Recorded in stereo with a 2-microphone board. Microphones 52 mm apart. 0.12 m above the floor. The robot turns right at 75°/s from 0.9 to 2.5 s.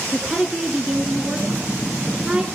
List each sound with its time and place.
0.1 s a woman speaking: 10° right (ahead or behind), 1.1 m; by 2.5 s 15° right (ahead or behind), 1.1 m